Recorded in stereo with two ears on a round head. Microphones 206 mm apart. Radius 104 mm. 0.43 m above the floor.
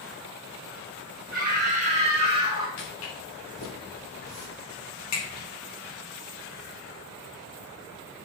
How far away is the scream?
About 3 m.